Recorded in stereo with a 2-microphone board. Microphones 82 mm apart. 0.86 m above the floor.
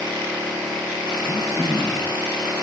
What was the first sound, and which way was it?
Throat clearing, 50° left (ahead or behind).